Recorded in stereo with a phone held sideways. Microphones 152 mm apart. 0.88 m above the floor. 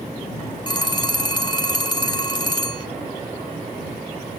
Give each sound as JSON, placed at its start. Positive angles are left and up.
{"t": 0.7, "sound": "a phone ringing", "side_deg": 30}